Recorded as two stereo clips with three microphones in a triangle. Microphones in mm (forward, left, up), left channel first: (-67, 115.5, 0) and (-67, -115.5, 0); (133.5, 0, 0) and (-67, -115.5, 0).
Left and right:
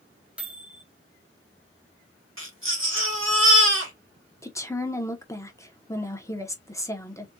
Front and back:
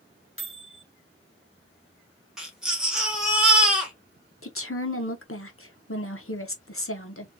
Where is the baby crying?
60° right, 1.5 m.